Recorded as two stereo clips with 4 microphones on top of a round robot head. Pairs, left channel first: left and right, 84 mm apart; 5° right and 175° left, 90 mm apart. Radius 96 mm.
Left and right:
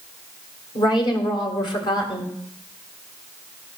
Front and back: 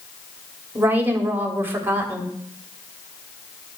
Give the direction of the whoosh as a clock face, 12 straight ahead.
No whoosh in this recording.